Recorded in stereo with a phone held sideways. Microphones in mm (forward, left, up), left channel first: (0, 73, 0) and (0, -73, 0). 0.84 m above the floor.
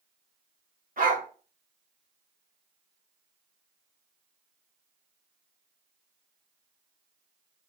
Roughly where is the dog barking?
Right.